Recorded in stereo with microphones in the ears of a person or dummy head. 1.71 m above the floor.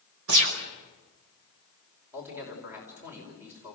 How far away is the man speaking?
About 5.5 m.